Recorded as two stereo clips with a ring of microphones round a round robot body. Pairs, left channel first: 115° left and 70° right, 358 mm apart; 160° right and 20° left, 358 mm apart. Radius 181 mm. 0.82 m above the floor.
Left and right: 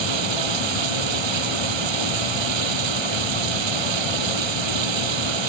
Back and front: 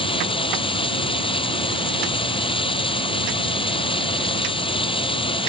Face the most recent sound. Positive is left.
turn(degrees=-80)